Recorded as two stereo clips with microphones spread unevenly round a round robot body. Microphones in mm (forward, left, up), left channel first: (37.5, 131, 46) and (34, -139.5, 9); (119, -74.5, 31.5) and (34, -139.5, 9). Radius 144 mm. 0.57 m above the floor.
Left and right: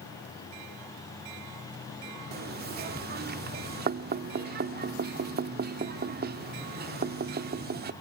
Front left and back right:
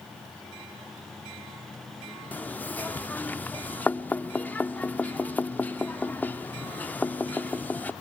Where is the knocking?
45° right, 0.8 m.